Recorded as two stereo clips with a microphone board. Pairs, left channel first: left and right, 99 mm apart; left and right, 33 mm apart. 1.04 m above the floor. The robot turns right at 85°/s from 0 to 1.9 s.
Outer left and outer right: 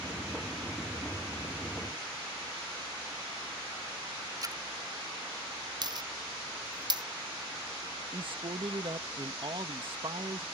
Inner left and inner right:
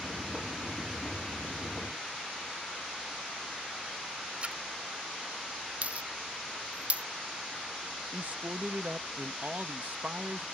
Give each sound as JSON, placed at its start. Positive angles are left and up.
{"t": 4.4, "sound": "a splash", "side_deg": -40}
{"t": 5.8, "sound": "a dropped coin", "side_deg": -45}
{"t": 8.1, "sound": "a man speaking", "side_deg": -60}